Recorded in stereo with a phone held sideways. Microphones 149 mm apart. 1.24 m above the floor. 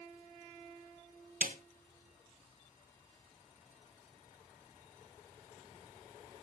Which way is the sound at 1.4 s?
60° right (ahead or behind).